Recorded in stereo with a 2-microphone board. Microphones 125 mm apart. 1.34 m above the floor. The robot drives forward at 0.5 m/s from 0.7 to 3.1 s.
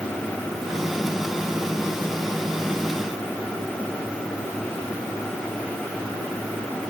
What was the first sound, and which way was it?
Only background noise.